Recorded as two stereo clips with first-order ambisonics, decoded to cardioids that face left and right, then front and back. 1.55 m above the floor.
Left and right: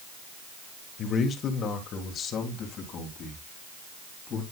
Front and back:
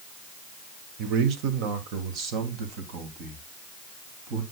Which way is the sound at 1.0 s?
150° left.